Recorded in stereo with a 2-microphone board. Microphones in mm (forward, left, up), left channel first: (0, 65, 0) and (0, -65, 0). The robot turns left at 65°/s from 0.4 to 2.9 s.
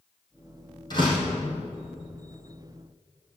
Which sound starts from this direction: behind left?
A door slam, at 0.9 s.